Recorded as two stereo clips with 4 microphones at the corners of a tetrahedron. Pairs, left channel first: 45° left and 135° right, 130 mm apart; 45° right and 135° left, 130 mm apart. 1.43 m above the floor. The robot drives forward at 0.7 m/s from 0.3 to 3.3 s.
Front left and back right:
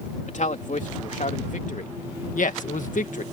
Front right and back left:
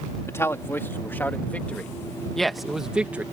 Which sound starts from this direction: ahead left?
A man speaking, at 0.3 s.